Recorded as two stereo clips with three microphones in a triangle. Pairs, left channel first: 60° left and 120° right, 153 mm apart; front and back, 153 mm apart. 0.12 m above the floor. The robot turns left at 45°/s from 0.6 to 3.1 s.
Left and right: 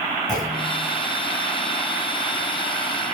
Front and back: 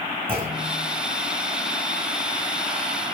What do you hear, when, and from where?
0.3 s a clunk: 125° left, 2 m; by 0.8 s 115° left, 2 m